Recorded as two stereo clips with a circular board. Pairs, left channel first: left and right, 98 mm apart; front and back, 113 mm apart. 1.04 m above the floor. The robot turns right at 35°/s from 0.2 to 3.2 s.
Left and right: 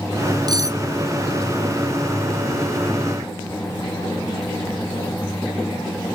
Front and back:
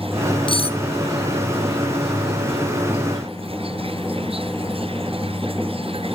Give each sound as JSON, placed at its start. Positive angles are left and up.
{"t": 0.5, "sound": "cutlery clinking", "azimuth_deg": -40, "distance_m": 0.7}